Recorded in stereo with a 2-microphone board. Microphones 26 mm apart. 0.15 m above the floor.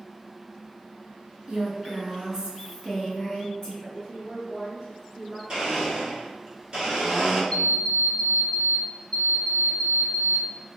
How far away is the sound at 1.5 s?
About 1.4 m.